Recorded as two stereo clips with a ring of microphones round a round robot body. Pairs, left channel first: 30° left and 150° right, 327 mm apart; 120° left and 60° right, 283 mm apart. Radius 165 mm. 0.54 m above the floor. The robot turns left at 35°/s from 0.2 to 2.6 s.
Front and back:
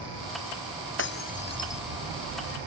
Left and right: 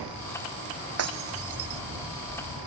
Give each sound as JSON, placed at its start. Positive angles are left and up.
{"t": 1.0, "sound": "breaking glass", "azimuth_deg": -25}